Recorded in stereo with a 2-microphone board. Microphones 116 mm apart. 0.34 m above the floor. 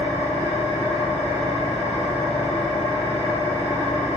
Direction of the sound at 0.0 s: 70° left (ahead or behind).